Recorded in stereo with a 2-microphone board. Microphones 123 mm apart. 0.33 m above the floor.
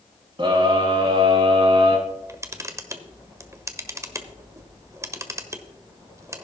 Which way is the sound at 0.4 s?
40° right (ahead or behind).